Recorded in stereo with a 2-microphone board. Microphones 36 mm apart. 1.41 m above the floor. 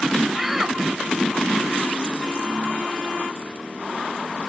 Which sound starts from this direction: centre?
A shout, at 0.3 s.